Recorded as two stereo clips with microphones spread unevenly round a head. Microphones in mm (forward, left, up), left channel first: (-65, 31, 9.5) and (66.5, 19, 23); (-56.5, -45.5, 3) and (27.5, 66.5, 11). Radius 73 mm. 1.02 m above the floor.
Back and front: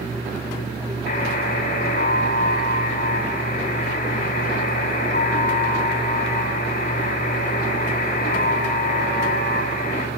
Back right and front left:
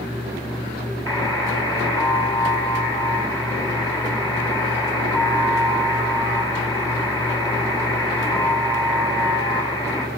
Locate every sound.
1.1 s a buzzer: 165° left, 6.5 m